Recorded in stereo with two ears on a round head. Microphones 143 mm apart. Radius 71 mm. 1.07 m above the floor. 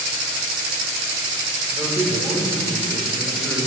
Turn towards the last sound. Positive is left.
turn(degrees=5)  # may be behind; listen again after turning